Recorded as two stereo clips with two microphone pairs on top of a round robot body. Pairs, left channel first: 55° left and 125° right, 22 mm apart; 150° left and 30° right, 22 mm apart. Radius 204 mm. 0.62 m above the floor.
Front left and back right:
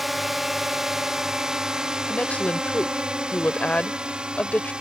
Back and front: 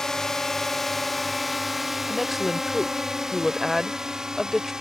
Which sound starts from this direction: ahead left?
A woman speaking, at 2.1 s.